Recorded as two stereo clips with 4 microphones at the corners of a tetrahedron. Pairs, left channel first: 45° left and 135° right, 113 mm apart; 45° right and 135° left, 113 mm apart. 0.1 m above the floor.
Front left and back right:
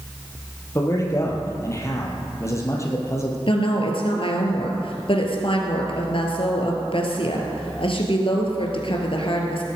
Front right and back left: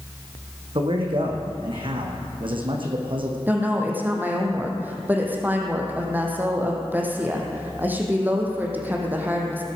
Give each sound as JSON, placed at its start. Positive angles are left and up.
{"t": 0.8, "sound": "a man speaking", "azimuth_deg": 105, "distance_m": 3.0}
{"t": 3.5, "sound": "a woman speaking", "azimuth_deg": 65, "distance_m": 3.0}